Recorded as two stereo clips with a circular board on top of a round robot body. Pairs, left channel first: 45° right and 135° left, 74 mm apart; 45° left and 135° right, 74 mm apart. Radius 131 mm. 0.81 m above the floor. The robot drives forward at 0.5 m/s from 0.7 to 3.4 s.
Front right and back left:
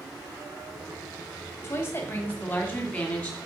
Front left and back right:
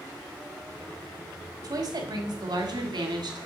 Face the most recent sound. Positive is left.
turn(degrees=-125)